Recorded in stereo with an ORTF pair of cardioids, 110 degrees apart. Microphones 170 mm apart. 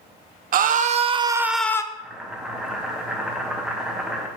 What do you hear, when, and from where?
0.5 s a scream: 50° right, 0.8 m; by 1.8 s 15° left, 0.5 m
1.9 s boiling: 5° right, 1.2 m